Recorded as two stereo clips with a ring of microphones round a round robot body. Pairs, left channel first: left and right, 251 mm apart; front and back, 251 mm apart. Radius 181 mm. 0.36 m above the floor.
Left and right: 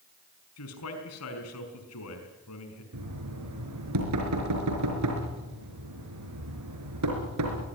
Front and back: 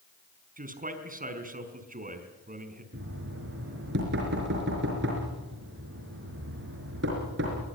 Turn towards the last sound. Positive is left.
turn(degrees=-120)